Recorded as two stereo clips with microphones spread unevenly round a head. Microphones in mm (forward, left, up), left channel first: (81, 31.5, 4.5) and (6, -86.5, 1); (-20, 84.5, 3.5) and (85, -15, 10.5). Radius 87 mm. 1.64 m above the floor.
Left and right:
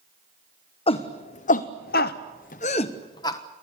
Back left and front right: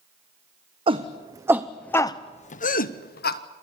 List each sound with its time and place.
0.9 s a shout: 10° left, 1.1 m; by 3.4 s 130° left, 1.2 m